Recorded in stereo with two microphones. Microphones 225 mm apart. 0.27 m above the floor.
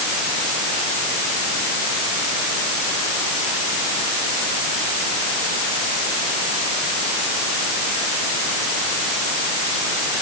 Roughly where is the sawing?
No sawing in this recording.